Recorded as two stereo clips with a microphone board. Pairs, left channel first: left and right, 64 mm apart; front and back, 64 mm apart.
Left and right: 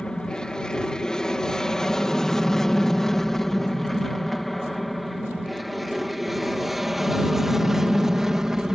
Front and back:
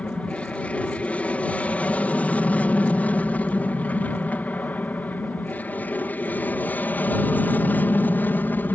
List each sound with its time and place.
0.0 s an aircraft: 30° left; by 8.8 s 15° right